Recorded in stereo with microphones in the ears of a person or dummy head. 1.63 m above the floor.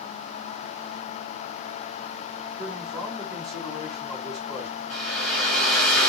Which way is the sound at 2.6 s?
5° left (ahead or behind).